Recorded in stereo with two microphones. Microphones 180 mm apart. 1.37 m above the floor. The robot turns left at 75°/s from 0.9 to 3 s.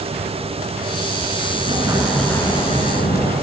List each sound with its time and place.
1.5 s an explosion: 130° right, 5.5 m; by 3.3 s 115° left, 5.5 m